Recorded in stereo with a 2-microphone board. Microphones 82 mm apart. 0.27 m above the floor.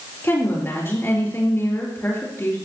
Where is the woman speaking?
30° left (ahead or behind), 5 m.